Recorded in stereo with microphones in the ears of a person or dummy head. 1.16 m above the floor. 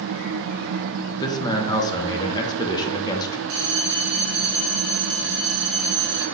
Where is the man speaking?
15° left (ahead or behind), 0.6 m.